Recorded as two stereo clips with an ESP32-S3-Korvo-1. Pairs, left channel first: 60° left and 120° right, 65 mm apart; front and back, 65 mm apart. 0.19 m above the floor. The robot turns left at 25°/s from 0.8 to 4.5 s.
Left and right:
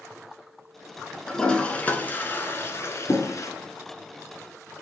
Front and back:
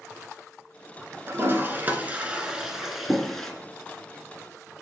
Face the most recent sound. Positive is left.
turn(degrees=60)